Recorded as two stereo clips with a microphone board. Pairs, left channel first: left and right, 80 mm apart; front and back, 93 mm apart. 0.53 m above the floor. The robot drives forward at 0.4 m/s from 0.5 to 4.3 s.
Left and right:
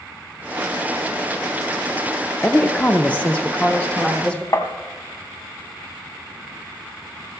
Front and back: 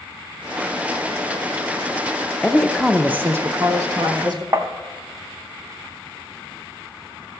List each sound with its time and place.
2.4 s a woman speaking: 70° left, 0.6 m; by 4.4 s 165° left, 0.9 m
4.5 s tapping: 130° left, 0.7 m